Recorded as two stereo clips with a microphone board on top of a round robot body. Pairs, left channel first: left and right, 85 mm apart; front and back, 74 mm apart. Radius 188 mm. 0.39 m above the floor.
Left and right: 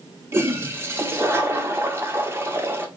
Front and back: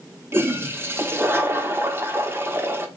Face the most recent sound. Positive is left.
turn(degrees=-135)